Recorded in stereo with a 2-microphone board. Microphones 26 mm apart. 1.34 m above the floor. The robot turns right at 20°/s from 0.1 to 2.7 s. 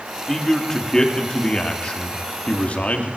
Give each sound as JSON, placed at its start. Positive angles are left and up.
{"t": 0.3, "sound": "a man speaking", "azimuth_deg": 10, "distance_m": 2.5}